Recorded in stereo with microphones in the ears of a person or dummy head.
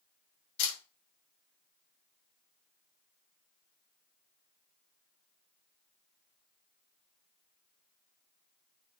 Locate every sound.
0.6 s a camera shutter: 65° left (ahead or behind), 2 m